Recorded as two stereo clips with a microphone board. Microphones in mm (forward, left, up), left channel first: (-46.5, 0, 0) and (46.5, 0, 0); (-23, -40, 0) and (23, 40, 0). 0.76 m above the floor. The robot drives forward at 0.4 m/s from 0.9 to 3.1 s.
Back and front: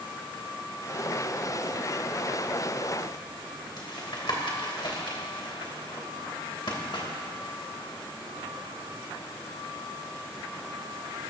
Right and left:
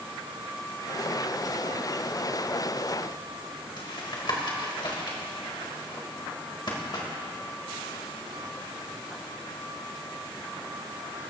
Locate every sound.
3.8 s tapping: 155° right, 2.5 m